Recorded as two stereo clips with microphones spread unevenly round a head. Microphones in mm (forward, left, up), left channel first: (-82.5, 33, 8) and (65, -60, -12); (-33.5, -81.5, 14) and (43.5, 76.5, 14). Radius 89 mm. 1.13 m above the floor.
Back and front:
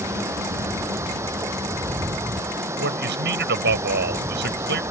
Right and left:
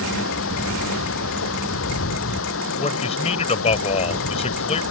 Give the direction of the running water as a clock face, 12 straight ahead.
4 o'clock.